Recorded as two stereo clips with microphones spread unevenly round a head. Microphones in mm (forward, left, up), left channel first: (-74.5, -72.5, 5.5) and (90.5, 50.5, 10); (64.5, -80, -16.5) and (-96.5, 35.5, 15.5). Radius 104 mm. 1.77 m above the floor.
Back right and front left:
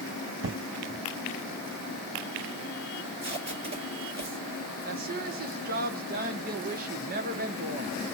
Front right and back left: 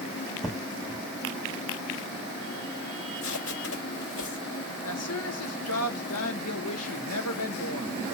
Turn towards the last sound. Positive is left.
turn(degrees=-10)